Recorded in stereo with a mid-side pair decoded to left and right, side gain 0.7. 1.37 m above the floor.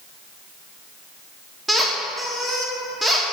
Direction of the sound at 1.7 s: 5° left.